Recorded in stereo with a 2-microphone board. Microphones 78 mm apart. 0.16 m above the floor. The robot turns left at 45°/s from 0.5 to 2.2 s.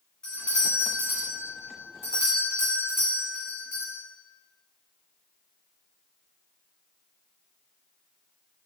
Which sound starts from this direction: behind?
A doorbell, at 0.2 s.